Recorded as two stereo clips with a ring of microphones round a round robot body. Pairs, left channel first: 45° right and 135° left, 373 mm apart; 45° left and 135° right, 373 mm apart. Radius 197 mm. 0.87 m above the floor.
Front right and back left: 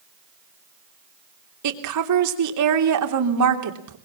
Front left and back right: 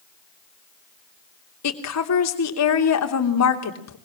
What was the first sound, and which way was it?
A woman speaking, 95° left.